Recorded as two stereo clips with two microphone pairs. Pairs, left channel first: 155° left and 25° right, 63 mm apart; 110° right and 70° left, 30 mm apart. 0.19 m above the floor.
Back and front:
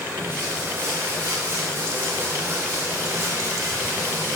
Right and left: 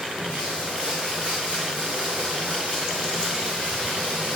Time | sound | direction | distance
0.0 | running water | 30° left | 3.5 m